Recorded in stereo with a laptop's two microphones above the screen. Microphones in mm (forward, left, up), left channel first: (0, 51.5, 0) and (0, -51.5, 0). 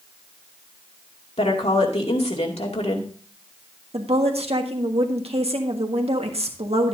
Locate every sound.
1.4 s a woman speaking: 85° left, 2.5 m
3.9 s a woman speaking: 80° right, 1.5 m